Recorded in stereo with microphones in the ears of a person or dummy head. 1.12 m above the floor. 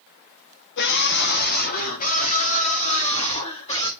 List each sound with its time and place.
0.8 s a scream: 65° left (ahead or behind), 1.5 m; by 3.9 s 30° left (ahead or behind), 3 m